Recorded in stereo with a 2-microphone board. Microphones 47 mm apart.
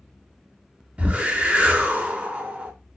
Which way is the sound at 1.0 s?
30° right (ahead or behind).